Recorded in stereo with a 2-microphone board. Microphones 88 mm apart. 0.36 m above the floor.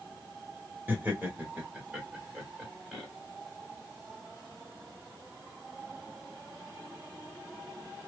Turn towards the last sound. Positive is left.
turn(degrees=-5)  # may be behind; listen again after turning